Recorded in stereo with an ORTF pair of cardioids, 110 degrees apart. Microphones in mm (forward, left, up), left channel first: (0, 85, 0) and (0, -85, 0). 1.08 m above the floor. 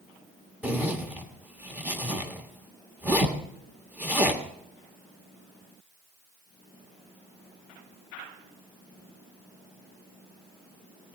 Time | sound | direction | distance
0.6 | a zipper | 10° right | 1.5 m